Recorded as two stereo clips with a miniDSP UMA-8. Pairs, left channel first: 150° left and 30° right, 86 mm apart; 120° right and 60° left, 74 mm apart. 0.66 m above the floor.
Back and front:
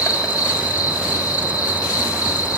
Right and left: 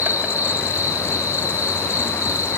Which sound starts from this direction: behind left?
An insect, at 0.0 s.